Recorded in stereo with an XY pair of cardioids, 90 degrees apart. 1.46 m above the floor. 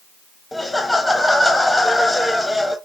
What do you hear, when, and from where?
0.5 s laughter: 15° left, 0.6 m